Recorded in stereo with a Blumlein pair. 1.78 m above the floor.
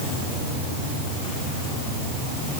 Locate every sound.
Only background noise.